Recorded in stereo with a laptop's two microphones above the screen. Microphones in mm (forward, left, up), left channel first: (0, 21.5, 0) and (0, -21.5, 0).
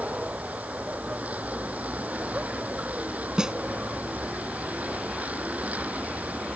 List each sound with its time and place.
0.0 s a vehicle: 35° right (ahead or behind)
3.4 s a snare drum: 15° right (ahead or behind)